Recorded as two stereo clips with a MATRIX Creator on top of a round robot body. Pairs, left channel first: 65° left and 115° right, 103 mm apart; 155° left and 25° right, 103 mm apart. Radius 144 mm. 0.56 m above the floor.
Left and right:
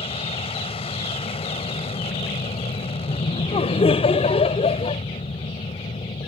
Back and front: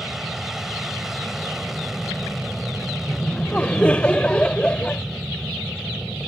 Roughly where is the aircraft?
Ahead left.